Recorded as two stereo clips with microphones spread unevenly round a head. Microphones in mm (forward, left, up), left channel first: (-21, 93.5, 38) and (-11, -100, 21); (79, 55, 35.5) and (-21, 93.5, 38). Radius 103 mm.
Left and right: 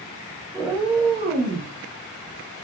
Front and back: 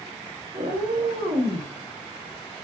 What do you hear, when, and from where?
0.5 s a cat meowing: straight behind, 0.6 m; by 1.7 s 135° right, 0.9 m